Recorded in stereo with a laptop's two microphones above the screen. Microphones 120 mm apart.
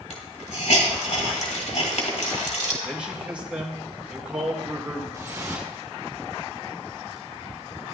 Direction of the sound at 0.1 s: 80° left.